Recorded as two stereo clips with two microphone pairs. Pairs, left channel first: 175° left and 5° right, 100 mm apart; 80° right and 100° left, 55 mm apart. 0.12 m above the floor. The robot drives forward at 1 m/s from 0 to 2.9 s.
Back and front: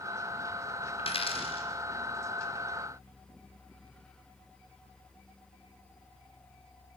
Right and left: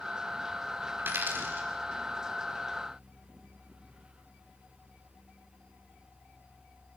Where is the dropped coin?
150° left, 4 m; by 1.7 s 155° left, 5 m.